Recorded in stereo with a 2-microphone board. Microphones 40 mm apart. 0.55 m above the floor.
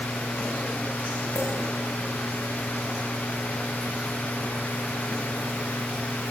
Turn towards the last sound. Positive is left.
turn(degrees=45)  # may be behind; listen again after turning